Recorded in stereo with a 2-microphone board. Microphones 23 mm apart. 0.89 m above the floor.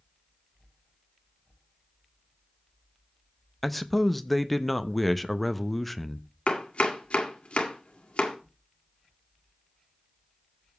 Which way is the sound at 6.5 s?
60° left (ahead or behind).